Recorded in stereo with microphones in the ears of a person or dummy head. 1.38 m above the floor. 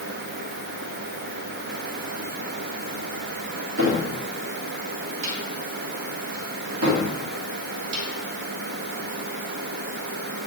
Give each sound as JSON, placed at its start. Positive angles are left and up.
{"t": 3.8, "sound": "a cupboard door", "side_deg": -65, "distance_m": 1.8}